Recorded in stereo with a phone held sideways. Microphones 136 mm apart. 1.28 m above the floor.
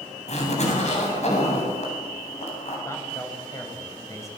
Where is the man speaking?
20° left (ahead or behind), 7.5 m.